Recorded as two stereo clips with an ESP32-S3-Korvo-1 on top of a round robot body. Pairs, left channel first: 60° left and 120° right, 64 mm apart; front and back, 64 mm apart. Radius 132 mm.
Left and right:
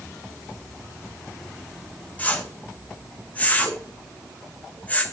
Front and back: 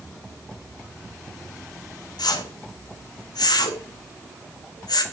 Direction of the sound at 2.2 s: 10° right.